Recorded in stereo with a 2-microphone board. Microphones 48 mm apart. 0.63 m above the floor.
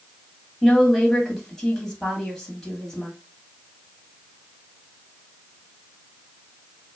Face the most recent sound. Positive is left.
turn(degrees=0)  # may be behind; listen again after turning